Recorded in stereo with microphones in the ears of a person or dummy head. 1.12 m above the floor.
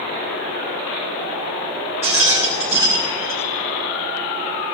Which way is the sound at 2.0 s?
10° right (ahead or behind).